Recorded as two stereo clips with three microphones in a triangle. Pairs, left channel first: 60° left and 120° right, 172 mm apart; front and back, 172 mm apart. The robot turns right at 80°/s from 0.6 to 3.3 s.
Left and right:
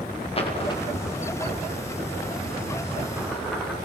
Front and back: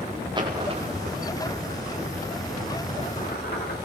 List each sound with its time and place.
0.3 s a dropped coin: 115° left, 8.5 m; by 3.8 s 30° right, 8.5 m